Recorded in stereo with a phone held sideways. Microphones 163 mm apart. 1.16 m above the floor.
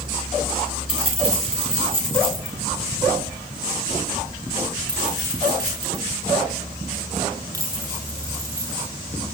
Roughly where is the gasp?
I don't hear a gasp.